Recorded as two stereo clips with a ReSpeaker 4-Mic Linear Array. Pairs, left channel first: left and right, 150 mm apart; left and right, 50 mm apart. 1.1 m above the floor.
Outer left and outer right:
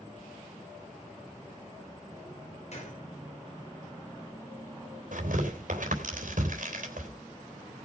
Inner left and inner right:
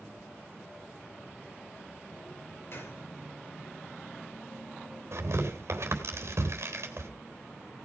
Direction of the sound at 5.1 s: 65° right (ahead or behind).